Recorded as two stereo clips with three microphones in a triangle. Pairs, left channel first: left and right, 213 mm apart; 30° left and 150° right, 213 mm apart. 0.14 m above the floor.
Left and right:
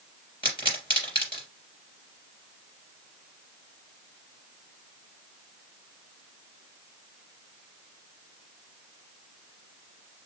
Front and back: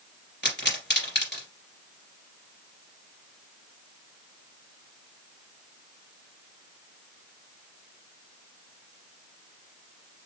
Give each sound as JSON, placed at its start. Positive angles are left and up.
{"t": 0.4, "sound": "a pop", "azimuth_deg": 30, "distance_m": 2.5}